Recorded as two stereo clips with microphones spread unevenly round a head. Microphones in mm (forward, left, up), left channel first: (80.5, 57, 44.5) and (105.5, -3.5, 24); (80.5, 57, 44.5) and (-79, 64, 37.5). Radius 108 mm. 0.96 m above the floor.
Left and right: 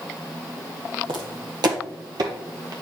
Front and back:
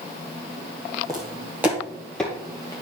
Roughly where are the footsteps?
Right.